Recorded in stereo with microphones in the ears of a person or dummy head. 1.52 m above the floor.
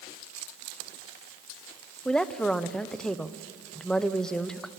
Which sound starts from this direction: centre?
A woman speaking, at 2.0 s.